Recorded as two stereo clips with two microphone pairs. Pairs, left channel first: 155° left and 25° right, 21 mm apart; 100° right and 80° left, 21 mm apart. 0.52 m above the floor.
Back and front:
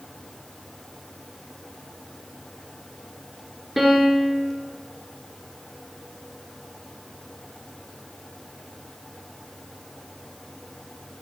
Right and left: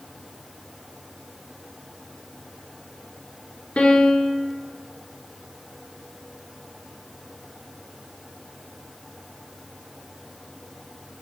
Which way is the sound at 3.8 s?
105° right.